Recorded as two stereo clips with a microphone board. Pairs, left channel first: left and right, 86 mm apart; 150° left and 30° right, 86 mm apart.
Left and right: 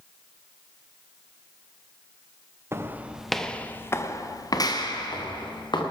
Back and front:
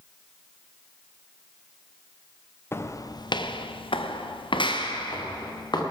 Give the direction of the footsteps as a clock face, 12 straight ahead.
5 o'clock.